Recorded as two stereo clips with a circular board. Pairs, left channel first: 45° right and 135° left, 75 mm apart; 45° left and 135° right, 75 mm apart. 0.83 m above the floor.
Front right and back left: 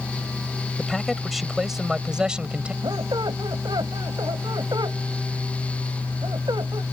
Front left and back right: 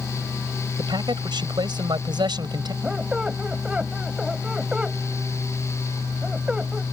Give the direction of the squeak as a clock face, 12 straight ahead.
7 o'clock.